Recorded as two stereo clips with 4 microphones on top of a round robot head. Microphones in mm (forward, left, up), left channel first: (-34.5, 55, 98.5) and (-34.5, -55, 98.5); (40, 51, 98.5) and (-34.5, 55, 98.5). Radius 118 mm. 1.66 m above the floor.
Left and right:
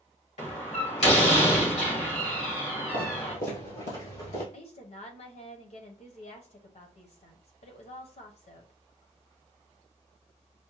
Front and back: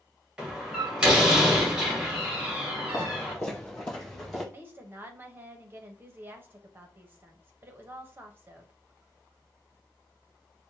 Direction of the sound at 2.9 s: 55° left.